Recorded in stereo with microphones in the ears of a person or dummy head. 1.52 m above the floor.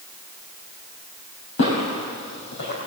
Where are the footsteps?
65° left (ahead or behind), 3.5 m; by 2.8 s 55° left (ahead or behind), 3 m.